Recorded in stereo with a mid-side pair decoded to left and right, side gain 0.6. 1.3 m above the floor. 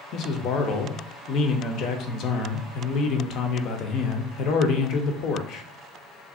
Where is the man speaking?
60° left, 0.6 m.